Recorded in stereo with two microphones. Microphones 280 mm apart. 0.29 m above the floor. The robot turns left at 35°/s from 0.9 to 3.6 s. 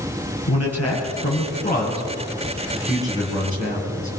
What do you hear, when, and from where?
0.5 s a man speaking: 60° left (ahead or behind), 7.5 m; by 4.1 s 35° right (ahead or behind), 7.5 m